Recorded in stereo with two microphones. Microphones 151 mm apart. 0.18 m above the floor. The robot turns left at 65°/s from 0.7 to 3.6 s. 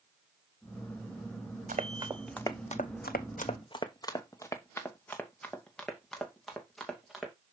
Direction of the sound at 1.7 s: 55° right (ahead or behind).